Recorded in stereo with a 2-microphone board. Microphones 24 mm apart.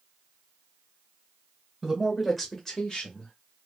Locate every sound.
1.8 s a man speaking: 20° right (ahead or behind), 1.3 m; by 3.3 s 35° left (ahead or behind), 1.8 m